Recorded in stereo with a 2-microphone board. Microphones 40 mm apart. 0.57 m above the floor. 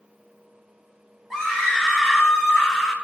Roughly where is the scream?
Centre.